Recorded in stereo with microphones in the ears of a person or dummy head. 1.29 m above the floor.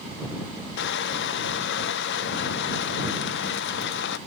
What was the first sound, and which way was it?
Crushing, 55° left (ahead or behind).